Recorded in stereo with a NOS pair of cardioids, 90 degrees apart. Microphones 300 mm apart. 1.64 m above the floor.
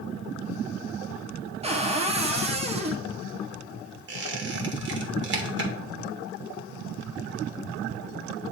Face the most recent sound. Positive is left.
turn(degrees=-40)